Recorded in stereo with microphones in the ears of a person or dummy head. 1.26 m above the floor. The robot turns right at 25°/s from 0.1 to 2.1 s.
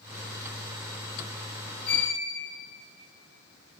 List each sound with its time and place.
1.9 s a violin: 30° left (ahead or behind), 2.5 m; by 2.1 s 35° left (ahead or behind), 2.5 m